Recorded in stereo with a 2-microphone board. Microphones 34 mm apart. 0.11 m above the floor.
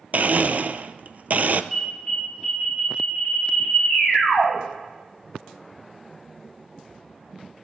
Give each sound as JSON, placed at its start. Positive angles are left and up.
{"t": 0.1, "sound": "a blender", "side_deg": -50, "distance_m": 0.5}
{"t": 1.7, "sound": "an alarm", "side_deg": -5, "distance_m": 6.0}